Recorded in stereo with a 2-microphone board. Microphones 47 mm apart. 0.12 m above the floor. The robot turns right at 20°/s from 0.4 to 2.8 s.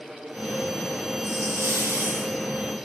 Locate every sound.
1.2 s a hiss: 75° right (ahead or behind), 2.5 m; by 2.4 s 65° right (ahead or behind), 2.5 m